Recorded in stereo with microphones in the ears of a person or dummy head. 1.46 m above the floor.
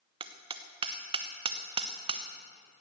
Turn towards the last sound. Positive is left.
turn(degrees=-25)  # may be behind; listen again after turning